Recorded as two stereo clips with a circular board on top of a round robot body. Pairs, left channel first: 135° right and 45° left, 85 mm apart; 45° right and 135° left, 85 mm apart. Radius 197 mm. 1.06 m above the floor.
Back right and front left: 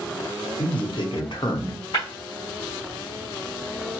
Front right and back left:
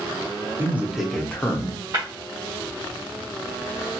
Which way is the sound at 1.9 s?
Straight behind.